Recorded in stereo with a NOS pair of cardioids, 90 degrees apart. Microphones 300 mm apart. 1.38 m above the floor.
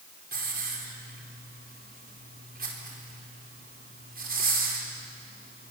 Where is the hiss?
30° right, 5 m.